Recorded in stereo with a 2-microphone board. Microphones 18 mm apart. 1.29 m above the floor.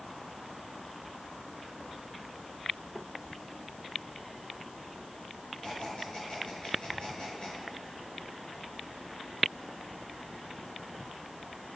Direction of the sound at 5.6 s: 70° left (ahead or behind).